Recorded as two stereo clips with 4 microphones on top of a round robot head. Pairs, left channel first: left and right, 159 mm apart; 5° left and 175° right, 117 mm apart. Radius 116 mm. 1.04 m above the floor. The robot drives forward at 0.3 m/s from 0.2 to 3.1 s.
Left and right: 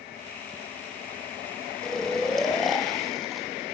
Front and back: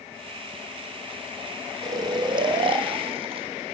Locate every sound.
1.8 s snoring: 175° left, 0.8 m